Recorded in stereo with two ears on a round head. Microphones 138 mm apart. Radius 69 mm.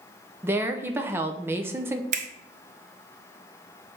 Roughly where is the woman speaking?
Centre.